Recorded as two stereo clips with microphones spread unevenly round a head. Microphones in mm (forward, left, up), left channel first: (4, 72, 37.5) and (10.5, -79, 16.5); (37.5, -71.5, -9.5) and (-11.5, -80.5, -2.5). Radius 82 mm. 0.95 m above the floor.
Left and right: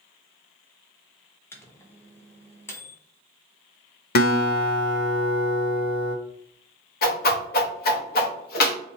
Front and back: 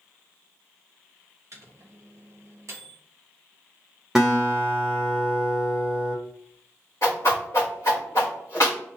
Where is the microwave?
170° left, 0.7 m.